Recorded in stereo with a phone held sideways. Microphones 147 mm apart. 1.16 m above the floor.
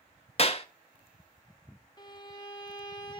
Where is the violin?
30° left (ahead or behind), 1.2 m.